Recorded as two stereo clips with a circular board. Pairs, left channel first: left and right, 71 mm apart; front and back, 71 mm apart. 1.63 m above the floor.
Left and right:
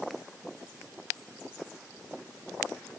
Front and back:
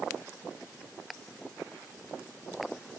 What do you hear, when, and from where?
Only background noise.